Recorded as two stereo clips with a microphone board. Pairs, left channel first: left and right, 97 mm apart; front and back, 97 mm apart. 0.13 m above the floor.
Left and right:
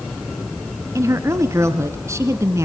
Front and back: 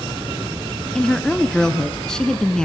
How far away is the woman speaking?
About 1.2 m.